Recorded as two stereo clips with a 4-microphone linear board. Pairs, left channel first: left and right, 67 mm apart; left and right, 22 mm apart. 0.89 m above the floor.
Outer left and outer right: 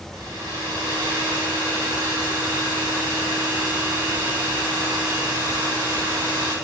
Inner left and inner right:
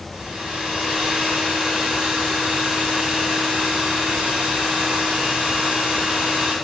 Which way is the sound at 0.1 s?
80° right.